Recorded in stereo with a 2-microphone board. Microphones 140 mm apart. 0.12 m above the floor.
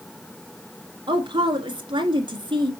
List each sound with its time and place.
1.1 s a woman speaking: 35° right (ahead or behind), 1.5 m